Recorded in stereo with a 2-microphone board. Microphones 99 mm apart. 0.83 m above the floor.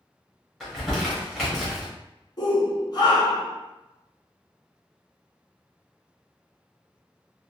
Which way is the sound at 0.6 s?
Centre (ahead or behind).